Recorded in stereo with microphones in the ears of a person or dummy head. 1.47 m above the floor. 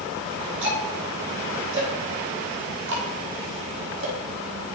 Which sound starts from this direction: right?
Ticking, at 0.6 s.